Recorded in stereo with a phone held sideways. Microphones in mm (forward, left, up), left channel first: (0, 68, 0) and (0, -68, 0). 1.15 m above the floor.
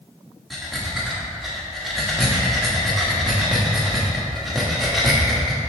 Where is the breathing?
Centre (ahead or behind), 1.3 m.